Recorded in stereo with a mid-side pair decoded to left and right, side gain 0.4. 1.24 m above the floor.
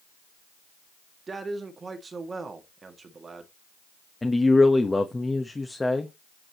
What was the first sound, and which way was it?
A man speaking, 40° right.